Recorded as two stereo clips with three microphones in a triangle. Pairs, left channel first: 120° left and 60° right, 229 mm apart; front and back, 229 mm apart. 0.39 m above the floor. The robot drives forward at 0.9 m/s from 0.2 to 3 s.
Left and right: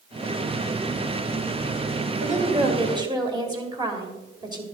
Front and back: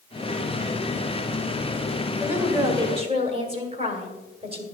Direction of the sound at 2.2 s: 95° right.